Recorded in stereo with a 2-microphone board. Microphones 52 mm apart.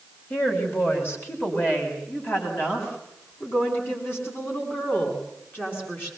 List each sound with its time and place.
0.3 s a woman speaking: 45° left (ahead or behind), 5 m; by 6.1 s 40° left (ahead or behind), 8.5 m